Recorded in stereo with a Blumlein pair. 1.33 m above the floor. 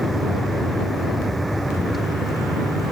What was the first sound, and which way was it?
A vehicle, straight ahead.